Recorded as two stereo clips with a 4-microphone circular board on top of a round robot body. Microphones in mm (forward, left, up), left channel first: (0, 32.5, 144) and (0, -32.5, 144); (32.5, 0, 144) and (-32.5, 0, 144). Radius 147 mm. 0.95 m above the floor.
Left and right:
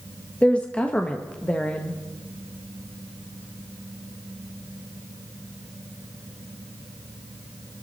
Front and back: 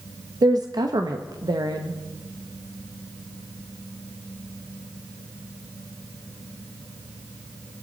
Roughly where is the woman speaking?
Behind.